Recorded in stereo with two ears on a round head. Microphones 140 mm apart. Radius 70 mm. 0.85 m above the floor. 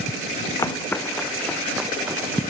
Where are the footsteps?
20° left (ahead or behind); by 2.4 s 15° right (ahead or behind).